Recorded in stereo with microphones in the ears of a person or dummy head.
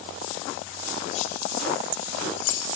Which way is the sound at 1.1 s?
45° left (ahead or behind).